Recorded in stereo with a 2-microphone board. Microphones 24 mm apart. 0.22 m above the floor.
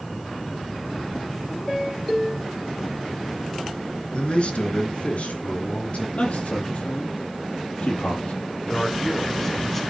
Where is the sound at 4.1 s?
50° left (ahead or behind), 2.5 m; by 6.0 s 70° left (ahead or behind), 5.5 m.